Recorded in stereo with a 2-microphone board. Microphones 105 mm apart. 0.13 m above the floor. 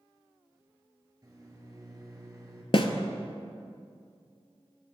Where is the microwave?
35° right (ahead or behind), 1.4 m.